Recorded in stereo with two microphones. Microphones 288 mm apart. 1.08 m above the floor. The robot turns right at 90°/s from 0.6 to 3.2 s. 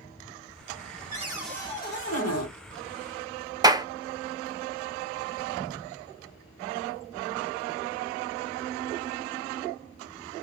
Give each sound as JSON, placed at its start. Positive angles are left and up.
{"t": 1.1, "sound": "a cupboard door", "azimuth_deg": -30, "distance_m": 1.6}
{"t": 3.6, "sound": "a clap", "side_deg": -15, "distance_m": 0.5}